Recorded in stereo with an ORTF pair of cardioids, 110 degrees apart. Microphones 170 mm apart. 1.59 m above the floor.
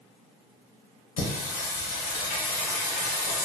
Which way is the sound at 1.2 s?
55° left.